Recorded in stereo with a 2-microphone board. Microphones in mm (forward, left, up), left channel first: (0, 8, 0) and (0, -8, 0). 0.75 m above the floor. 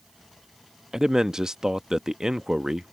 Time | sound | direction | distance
0.9 | a man speaking | 45° right (ahead or behind) | ?